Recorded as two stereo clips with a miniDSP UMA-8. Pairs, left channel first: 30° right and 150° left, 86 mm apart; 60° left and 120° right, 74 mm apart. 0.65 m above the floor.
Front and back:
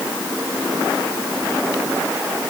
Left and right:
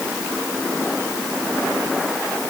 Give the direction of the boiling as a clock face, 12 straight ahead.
I don't hear boiling.